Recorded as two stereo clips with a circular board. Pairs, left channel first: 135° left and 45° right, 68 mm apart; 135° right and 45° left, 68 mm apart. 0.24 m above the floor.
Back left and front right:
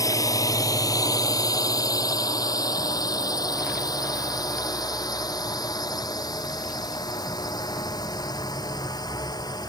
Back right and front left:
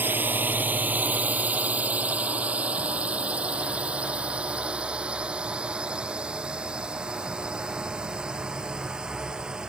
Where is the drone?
105° left; by 9.7 s 125° left.